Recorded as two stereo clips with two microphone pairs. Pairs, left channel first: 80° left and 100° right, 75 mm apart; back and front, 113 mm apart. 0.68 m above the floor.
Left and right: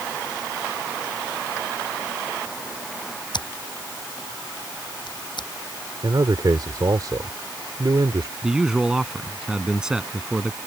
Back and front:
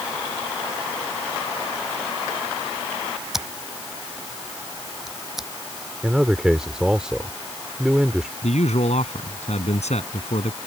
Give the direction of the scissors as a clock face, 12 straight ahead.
9 o'clock.